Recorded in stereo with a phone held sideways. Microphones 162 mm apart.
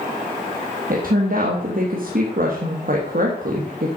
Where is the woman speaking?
60° right (ahead or behind), 1.5 m.